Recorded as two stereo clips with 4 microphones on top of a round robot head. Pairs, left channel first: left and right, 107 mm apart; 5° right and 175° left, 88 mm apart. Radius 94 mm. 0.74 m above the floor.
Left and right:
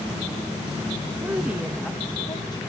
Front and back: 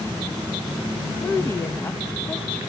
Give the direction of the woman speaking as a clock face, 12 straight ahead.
2 o'clock.